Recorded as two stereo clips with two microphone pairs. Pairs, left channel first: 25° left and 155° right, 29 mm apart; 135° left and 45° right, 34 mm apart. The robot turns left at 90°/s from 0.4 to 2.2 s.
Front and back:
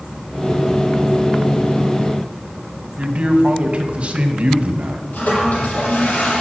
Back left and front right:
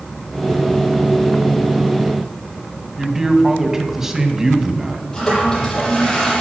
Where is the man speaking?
125° right, 1.9 m.